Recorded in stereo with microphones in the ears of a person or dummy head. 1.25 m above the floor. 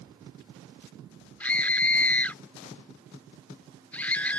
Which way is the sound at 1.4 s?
10° left (ahead or behind).